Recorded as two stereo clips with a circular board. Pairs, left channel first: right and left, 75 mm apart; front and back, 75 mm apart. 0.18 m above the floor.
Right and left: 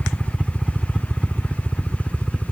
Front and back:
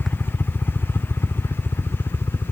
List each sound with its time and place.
0.0 s a helicopter: 10° left; by 2.5 s straight ahead